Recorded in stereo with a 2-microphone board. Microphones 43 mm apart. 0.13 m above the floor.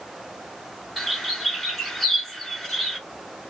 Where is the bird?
5° left (ahead or behind), 1.2 m.